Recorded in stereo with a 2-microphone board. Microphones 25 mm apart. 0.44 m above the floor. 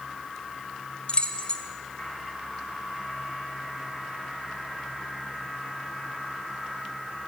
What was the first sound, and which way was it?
Keys jangling, 45° left (ahead or behind).